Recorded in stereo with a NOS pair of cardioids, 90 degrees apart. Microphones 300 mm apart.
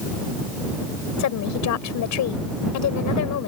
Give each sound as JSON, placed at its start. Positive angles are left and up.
{"t": 1.2, "sound": "a woman speaking", "azimuth_deg": 70}